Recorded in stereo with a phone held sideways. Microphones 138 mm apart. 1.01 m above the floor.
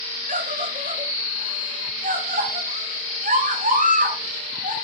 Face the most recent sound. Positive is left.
turn(degrees=-80)